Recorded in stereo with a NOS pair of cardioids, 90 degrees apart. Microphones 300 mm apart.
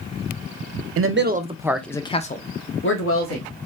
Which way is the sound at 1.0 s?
50° right.